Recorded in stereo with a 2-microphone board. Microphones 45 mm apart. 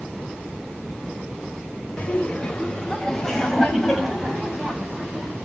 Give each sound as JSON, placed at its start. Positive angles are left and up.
{"t": 2.0, "sound": "laughter", "side_deg": 25, "distance_m": 3.0}